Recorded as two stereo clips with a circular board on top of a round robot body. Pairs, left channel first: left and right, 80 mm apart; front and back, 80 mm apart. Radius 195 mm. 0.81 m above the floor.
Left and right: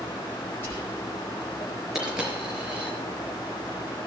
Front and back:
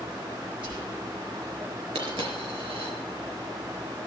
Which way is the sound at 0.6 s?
155° left.